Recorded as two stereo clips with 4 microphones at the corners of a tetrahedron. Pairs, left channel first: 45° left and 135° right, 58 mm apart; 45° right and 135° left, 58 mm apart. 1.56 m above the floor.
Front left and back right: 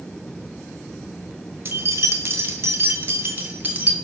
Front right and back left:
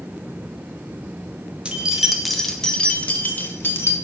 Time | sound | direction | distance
1.6 | keys jangling | 160° right | 1.2 m